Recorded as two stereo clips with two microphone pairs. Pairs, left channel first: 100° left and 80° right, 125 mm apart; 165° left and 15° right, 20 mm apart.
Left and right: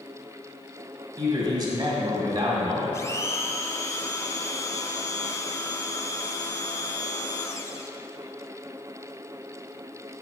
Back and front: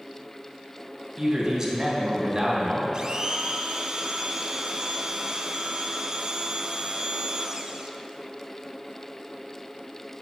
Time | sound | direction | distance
1.2 | a man speaking | 50° right | 1.9 m
2.9 | a blender | 35° left | 0.6 m